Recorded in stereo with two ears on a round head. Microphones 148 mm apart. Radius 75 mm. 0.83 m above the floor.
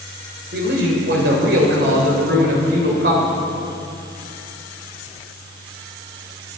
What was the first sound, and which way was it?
A man speaking, 65° right (ahead or behind).